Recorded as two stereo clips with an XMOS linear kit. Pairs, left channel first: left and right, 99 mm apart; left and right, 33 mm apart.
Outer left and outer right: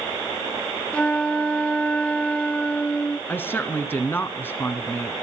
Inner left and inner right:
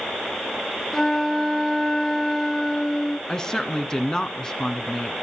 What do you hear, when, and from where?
0.9 s a flute: 10° left (ahead or behind), 0.5 m
3.3 s a woman speaking: 20° left (ahead or behind), 1.7 m